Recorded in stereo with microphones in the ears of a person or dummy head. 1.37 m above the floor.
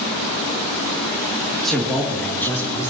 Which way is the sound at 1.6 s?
Centre (ahead or behind).